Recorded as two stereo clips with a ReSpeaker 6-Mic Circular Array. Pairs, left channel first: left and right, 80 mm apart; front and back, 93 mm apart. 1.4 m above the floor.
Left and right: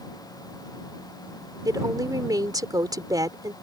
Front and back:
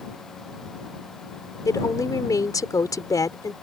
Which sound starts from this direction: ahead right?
A woman speaking, at 1.6 s.